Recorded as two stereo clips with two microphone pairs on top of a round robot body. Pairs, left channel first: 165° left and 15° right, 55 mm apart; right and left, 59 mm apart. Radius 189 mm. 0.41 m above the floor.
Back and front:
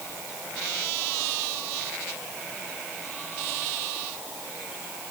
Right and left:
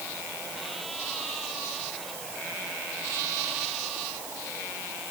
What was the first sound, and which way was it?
Only background noise.